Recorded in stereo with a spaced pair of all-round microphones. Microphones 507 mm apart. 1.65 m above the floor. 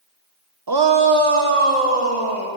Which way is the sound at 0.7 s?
45° right (ahead or behind).